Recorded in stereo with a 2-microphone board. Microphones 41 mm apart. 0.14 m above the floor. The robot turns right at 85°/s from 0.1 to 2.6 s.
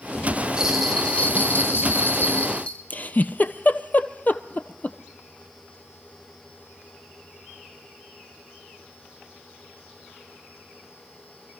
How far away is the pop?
I don't hear a pop.